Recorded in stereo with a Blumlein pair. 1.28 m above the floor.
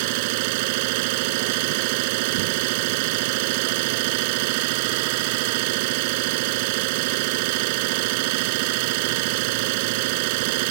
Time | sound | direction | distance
0.0 | an engine running | 45° right | ?